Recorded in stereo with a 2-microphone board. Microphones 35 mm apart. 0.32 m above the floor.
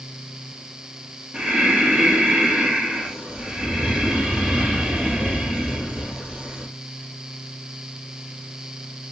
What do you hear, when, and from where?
1.3 s breathing: 20° right (ahead or behind), 2.5 m